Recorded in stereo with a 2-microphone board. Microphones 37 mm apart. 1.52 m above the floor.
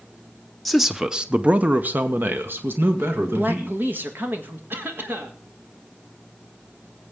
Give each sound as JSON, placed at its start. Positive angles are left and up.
{"t": 0.7, "sound": "a man speaking", "side_deg": 0, "distance_m": 0.8}
{"t": 3.3, "sound": "a man speaking", "side_deg": -70, "distance_m": 1.7}
{"t": 4.7, "sound": "a cough", "side_deg": -75, "distance_m": 2.0}